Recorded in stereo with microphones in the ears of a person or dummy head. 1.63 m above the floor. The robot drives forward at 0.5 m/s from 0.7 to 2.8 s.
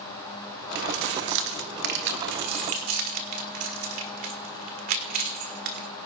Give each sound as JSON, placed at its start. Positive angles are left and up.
{"t": 0.8, "sound": "keys jangling", "side_deg": -65, "distance_m": 1.3}